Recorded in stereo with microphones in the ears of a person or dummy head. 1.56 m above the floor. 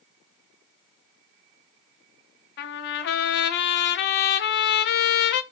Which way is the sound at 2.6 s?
60° left (ahead or behind).